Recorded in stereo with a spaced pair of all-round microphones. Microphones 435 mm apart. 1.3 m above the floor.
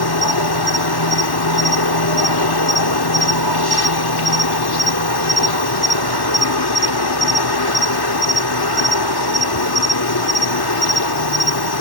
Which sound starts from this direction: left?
An insect, at 0.0 s.